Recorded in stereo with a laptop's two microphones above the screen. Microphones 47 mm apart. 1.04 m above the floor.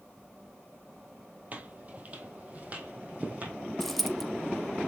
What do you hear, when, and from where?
1.5 s footsteps: 35° right (ahead or behind), 2 m; by 3.5 s 30° right (ahead or behind), 3.5 m
3.8 s a dropped coin: 5° left (ahead or behind), 0.6 m